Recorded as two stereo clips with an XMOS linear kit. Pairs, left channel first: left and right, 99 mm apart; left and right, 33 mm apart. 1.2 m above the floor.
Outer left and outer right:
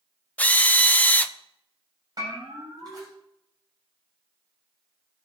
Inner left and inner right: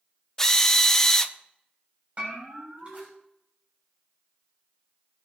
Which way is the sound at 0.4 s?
15° left (ahead or behind).